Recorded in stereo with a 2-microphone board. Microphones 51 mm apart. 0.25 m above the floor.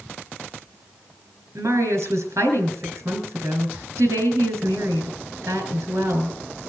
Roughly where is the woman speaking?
Right.